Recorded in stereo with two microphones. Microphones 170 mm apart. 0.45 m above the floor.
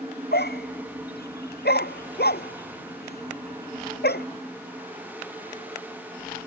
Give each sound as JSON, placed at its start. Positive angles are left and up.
{"t": 0.3, "sound": "a dog barking", "side_deg": 75}